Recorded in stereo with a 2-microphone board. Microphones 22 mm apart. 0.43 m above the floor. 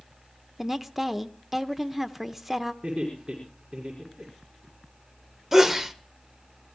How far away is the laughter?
About 6 m.